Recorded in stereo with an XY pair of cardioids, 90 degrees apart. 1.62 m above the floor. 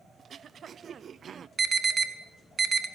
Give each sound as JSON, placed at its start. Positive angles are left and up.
{"t": 0.2, "sound": "throat clearing", "azimuth_deg": -60, "distance_m": 0.7}
{"t": 1.6, "sound": "an alarm", "azimuth_deg": -40, "distance_m": 2.5}